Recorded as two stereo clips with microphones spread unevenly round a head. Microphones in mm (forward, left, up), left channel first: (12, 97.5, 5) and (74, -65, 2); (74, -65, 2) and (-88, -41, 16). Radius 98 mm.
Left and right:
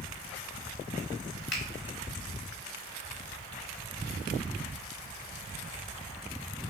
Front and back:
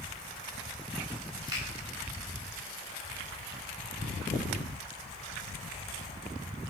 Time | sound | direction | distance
1.5 | a finger snap | 100° left | 3 m